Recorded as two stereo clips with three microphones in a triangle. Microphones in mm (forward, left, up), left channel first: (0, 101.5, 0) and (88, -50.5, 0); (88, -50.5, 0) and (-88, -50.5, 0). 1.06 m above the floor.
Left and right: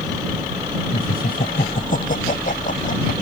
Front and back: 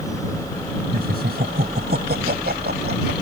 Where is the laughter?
155° left; by 3.1 s 160° left.